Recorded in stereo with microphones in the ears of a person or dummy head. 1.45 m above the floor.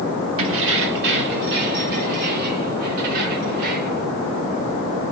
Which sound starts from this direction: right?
Keys jangling, at 0.4 s.